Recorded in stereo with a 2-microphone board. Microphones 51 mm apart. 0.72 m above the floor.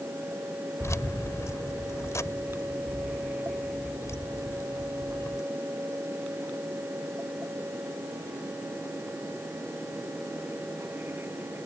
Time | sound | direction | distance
0.8 | keys jangling | 75° left (ahead or behind) | ?